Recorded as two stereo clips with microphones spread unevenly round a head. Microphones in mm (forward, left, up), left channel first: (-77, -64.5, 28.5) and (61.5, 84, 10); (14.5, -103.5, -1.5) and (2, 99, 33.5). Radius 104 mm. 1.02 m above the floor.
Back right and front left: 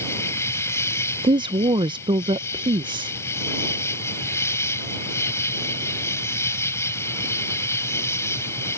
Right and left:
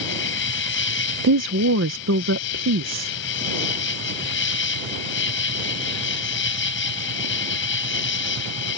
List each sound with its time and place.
0.0 s an insect: 55° right
1.2 s a woman speaking: 105° left